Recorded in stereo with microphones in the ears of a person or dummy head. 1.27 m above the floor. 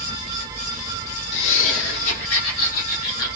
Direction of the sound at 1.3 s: 75° left (ahead or behind).